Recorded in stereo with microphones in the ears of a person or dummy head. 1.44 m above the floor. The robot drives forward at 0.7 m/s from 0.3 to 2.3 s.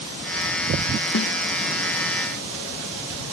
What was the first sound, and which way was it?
A snare drum, 55° left (ahead or behind).